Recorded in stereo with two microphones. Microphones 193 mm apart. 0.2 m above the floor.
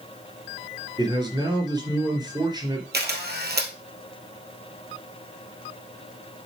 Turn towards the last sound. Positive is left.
turn(degrees=-60)  # may be behind; listen again after turning